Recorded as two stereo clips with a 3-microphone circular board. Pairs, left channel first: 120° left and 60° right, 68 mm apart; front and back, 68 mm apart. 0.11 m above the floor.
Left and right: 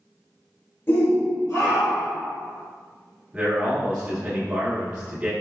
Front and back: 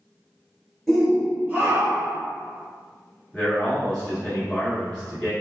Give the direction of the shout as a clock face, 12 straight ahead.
9 o'clock.